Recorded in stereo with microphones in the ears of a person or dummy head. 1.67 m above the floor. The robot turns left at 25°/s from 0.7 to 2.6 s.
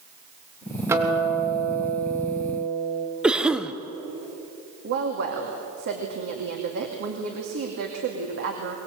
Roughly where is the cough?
Centre.